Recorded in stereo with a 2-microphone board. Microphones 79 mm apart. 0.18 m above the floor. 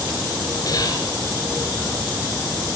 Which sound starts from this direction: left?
Whispering, at 0.7 s.